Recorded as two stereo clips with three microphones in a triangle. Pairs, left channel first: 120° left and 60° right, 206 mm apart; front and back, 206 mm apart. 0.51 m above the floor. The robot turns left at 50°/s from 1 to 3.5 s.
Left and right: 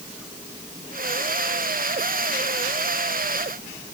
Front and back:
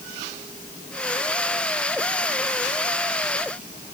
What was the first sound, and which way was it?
Only background noise.